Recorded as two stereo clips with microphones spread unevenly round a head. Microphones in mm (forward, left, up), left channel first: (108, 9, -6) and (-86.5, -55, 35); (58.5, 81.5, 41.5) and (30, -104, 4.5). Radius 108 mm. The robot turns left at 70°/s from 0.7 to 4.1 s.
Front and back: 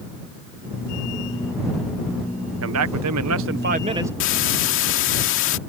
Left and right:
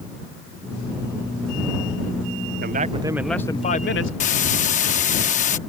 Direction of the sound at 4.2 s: 50° left.